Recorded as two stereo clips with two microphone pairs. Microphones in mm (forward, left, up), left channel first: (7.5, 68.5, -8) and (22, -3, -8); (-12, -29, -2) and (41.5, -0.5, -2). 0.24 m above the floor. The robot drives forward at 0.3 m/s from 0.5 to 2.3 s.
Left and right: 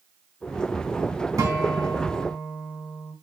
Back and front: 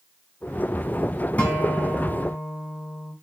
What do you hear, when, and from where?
1.4 s a guitar: 90° right, 1.5 m; by 3.1 s 105° right, 1.6 m